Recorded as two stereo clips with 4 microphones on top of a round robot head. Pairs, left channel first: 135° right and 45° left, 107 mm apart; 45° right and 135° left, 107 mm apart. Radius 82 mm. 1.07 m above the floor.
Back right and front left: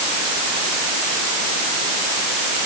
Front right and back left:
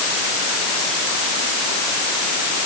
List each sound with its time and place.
Only background noise.